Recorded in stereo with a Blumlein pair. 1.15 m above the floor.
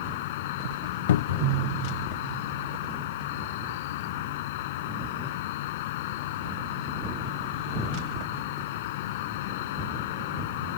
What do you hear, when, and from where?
0.0 s an insect: 50° left
1.1 s a cupboard door: 60° left